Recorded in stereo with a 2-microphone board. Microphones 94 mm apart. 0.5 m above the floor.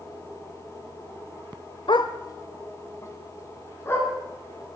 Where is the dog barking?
60° left (ahead or behind), 0.7 m; by 4.1 s 25° left (ahead or behind), 3.5 m.